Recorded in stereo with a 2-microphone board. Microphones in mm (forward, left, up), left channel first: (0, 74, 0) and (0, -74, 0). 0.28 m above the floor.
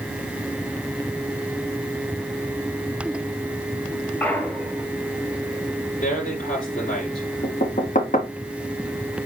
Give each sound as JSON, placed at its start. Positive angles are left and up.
{"t": 4.2, "sound": "a clunk", "side_deg": 10, "distance_m": 1.6}
{"t": 6.0, "sound": "a man speaking", "side_deg": 65, "distance_m": 6.0}
{"t": 7.4, "sound": "knocking", "side_deg": 65, "distance_m": 2.0}